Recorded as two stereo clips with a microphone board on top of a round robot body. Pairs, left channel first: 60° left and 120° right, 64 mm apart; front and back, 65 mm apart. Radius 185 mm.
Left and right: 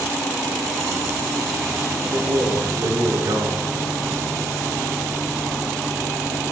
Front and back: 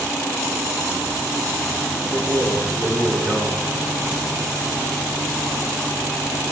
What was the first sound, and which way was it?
A man speaking, 100° right.